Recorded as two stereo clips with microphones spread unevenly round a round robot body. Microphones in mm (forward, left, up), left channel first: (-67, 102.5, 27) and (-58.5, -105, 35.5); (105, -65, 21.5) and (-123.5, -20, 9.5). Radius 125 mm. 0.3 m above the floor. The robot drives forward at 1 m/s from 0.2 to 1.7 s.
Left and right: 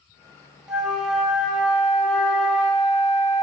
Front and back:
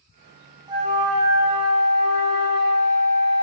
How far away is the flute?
About 0.7 m.